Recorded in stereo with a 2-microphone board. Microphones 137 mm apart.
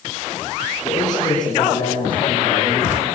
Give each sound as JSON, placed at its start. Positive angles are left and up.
{"t": 0.8, "sound": "a man speaking", "side_deg": 30, "distance_m": 7.5}